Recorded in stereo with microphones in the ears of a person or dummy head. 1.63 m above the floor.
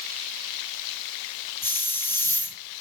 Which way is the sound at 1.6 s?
10° left (ahead or behind).